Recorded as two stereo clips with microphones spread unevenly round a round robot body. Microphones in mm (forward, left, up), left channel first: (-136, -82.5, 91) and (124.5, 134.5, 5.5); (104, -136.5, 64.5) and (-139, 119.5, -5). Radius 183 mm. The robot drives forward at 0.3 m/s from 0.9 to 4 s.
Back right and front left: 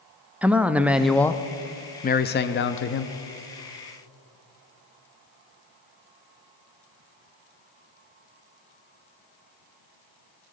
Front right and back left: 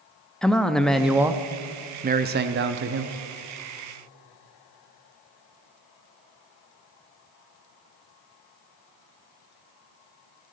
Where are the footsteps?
No footsteps in this recording.